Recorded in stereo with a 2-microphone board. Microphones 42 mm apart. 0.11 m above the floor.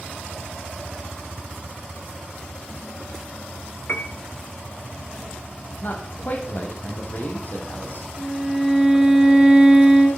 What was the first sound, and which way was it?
A piano, 50° left (ahead or behind).